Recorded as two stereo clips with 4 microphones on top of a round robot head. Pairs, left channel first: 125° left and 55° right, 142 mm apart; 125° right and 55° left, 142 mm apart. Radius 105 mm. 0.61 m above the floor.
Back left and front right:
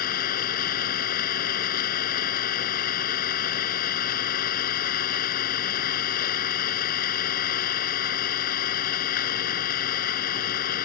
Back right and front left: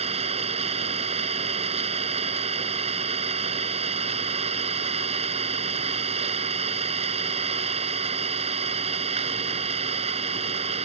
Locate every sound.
0.0 s an engine running: 105° left